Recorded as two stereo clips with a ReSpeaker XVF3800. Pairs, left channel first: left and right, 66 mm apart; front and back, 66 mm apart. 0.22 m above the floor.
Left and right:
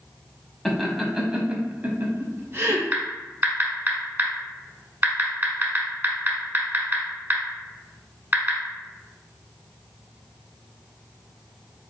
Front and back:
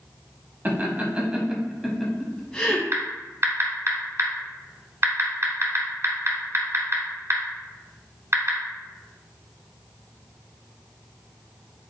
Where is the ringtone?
I don't hear a ringtone.